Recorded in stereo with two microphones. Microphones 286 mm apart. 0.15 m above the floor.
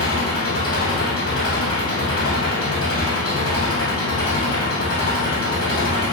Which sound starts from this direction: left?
An engine running, at 0.0 s.